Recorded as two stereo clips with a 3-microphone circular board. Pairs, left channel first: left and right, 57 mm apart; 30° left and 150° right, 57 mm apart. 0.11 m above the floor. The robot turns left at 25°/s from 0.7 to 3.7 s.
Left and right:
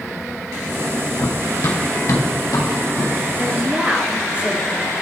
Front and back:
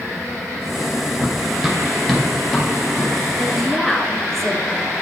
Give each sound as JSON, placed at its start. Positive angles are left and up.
{"t": 1.2, "sound": "running footsteps", "azimuth_deg": 135, "distance_m": 0.9}
{"t": 3.4, "sound": "a woman speaking", "azimuth_deg": -45, "distance_m": 1.1}